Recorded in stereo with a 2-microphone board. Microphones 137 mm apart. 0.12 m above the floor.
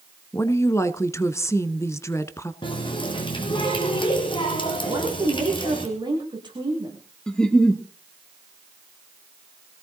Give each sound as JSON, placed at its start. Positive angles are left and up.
{"t": 0.3, "sound": "a woman speaking", "side_deg": 20, "distance_m": 1.0}
{"t": 2.6, "sound": "a running tap", "side_deg": 35, "distance_m": 3.5}
{"t": 4.9, "sound": "a woman speaking", "side_deg": -35, "distance_m": 7.5}
{"t": 7.3, "sound": "a giggle", "side_deg": 5, "distance_m": 2.0}